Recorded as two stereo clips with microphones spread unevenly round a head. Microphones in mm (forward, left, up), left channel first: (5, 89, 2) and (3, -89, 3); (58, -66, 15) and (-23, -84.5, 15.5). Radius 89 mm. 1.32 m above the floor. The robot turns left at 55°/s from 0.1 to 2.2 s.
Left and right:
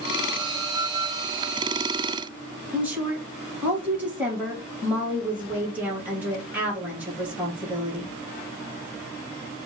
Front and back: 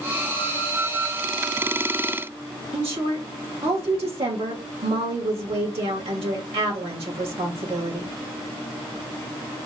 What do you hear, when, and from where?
2.7 s a woman speaking: 175° right, 2.5 m